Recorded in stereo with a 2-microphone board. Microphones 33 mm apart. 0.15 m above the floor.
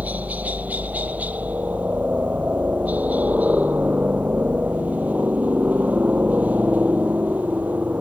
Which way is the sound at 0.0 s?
50° right (ahead or behind).